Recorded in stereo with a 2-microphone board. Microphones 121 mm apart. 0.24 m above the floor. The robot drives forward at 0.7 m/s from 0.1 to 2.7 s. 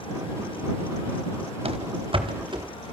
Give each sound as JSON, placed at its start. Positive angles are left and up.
{"t": 1.6, "sound": "running footsteps", "side_deg": -55, "distance_m": 1.9}